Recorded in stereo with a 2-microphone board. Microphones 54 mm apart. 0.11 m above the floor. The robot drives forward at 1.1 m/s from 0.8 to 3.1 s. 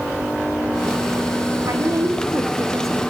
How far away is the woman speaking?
About 5 m.